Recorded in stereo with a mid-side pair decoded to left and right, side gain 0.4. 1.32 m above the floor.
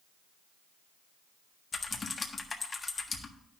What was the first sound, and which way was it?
Typing on a keyboard, 35° left.